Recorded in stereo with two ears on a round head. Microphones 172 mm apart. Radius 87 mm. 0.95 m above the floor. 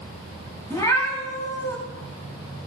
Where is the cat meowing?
20° left (ahead or behind), 4.5 m.